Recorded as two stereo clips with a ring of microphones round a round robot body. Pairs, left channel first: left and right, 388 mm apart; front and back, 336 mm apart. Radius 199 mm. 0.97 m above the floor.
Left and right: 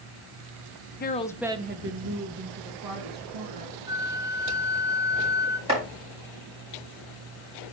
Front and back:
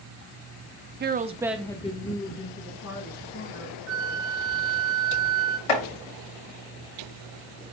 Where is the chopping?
15° right, 5 m.